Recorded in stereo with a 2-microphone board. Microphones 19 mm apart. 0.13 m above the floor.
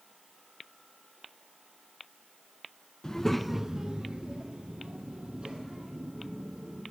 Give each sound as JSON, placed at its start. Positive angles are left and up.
{"t": 3.0, "sound": "a child speaking", "side_deg": 25, "distance_m": 0.7}